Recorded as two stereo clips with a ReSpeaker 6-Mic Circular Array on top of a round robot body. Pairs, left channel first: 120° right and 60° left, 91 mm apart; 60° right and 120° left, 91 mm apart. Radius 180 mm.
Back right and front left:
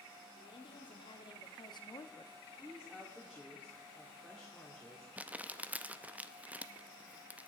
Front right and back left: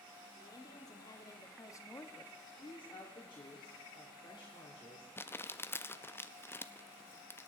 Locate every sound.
0.4 s a woman speaking: 100° right, 1.9 m; by 2.3 s 110° right, 1.0 m
2.5 s a woman speaking: 30° right, 2.5 m
5.2 s crumpling: 5° right, 0.7 m